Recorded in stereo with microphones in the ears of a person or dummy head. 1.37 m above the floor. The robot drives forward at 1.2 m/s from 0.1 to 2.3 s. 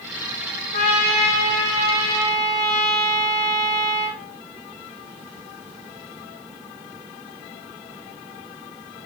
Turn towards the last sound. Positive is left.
turn(degrees=25)  # may be behind; listen again after turning